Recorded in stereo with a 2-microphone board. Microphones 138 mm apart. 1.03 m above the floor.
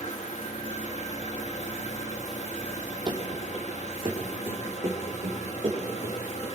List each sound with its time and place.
0.0 s an engine running: 55° left (ahead or behind), 1.5 m
3.1 s running footsteps: 30° right (ahead or behind), 2.5 m; by 6.5 s 35° right (ahead or behind), 7.5 m